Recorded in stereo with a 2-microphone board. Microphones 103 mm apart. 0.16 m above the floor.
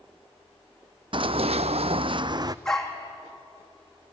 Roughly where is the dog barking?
Centre.